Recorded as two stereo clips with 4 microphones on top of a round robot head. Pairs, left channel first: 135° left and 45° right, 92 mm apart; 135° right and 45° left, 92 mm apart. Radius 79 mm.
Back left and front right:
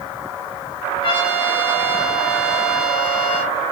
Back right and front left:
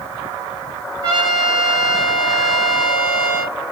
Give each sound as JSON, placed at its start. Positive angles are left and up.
{"t": 1.0, "sound": "a trumpet", "azimuth_deg": 90, "distance_m": 1.1}